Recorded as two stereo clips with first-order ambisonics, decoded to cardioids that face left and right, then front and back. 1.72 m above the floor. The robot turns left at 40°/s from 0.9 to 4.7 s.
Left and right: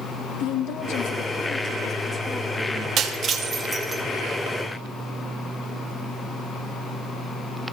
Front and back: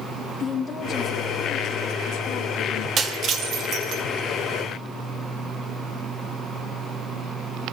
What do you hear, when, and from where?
0.4 s a woman speaking: 70° left, 2.5 m; by 2.9 s 10° right, 2.5 m
3.0 s breaking glass: 130° right, 1.4 m; by 4.0 s 170° right, 1.4 m